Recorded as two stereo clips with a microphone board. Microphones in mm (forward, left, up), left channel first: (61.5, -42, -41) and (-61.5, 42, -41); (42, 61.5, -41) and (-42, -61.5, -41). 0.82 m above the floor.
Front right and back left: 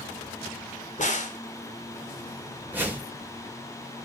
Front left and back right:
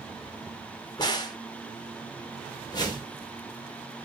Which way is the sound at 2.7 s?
80° left.